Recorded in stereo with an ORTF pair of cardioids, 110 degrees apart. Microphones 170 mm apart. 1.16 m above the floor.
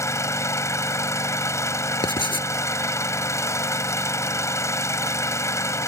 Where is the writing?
30° left.